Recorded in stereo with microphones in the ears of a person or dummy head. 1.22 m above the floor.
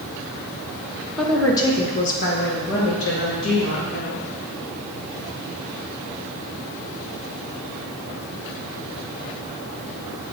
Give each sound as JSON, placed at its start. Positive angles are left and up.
{"t": 1.2, "sound": "a woman speaking", "side_deg": 0, "distance_m": 1.7}